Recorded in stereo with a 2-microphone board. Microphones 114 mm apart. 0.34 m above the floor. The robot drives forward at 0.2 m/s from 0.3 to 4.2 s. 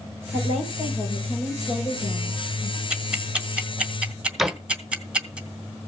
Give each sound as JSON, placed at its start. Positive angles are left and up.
{"t": 0.3, "sound": "a woman speaking", "side_deg": 75, "distance_m": 6.5}
{"t": 2.9, "sound": "ticking", "side_deg": -10, "distance_m": 1.8}
{"t": 4.4, "sound": "a door slam", "side_deg": 0, "distance_m": 0.7}